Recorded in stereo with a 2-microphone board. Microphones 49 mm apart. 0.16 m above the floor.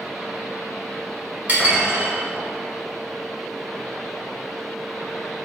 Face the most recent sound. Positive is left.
turn(degrees=-40)  # may be behind; listen again after turning